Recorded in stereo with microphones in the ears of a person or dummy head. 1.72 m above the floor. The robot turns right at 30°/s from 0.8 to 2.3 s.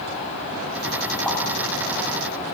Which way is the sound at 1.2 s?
5° left (ahead or behind).